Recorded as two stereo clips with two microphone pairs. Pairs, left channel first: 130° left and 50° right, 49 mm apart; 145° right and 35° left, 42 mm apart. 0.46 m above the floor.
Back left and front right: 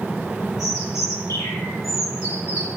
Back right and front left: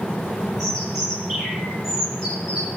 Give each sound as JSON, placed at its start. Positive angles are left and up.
{"t": 0.6, "sound": "a bird", "azimuth_deg": 120, "distance_m": 8.5}